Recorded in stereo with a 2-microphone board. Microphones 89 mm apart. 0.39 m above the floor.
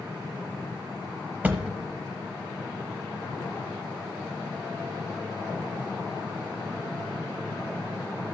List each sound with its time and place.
1.4 s a thud: 20° right (ahead or behind), 0.8 m